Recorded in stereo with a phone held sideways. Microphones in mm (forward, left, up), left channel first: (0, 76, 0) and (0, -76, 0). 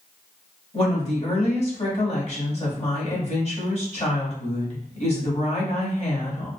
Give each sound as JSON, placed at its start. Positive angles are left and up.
{"t": 0.7, "sound": "a woman speaking", "side_deg": 45, "distance_m": 1.6}